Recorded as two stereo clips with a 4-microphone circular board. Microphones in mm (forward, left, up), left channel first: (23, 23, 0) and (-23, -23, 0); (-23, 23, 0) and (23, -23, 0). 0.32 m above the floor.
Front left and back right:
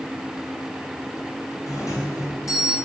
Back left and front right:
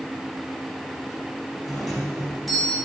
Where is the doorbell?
50° left, 2.5 m.